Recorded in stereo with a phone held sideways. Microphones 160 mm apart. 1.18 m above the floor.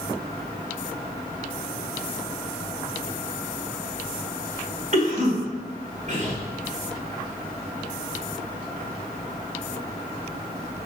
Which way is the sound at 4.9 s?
50° right (ahead or behind).